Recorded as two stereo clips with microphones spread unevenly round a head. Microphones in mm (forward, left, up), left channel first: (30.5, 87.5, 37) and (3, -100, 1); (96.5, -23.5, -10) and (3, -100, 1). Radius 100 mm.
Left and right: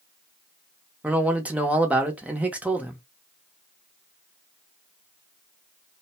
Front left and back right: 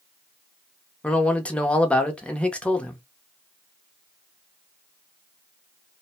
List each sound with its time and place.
1.0 s a man speaking: 30° right, 0.8 m